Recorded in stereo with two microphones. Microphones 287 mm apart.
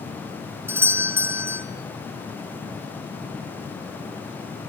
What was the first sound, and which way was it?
A doorbell, 10° right (ahead or behind).